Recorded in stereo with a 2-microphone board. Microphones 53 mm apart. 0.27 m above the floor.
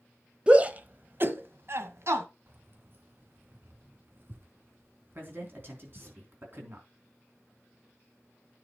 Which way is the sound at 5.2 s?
45° right (ahead or behind).